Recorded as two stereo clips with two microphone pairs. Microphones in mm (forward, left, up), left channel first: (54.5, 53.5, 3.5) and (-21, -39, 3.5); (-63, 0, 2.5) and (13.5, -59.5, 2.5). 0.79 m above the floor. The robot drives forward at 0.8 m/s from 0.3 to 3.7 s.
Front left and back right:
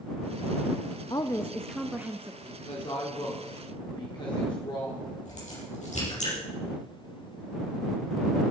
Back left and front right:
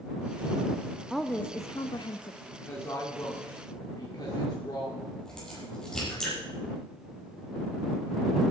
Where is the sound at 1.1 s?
45° left, 0.5 m; by 2.3 s 160° left, 0.9 m.